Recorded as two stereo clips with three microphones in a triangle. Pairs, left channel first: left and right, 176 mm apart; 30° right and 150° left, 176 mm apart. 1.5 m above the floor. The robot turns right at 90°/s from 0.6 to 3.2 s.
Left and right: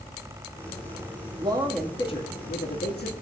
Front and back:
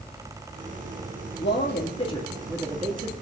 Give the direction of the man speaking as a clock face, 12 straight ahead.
1 o'clock.